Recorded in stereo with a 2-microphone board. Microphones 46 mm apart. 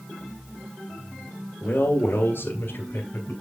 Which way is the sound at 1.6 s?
55° left (ahead or behind).